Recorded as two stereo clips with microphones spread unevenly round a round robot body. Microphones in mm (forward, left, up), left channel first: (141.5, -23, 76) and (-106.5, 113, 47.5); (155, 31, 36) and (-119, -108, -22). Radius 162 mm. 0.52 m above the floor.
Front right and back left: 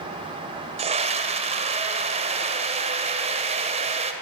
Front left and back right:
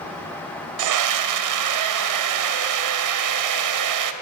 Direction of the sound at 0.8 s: 140° right.